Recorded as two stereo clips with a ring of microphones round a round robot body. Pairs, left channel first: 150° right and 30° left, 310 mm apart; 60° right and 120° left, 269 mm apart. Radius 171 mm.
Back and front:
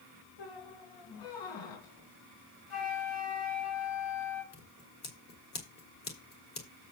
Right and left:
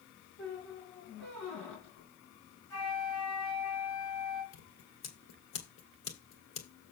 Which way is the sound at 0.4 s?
150° right.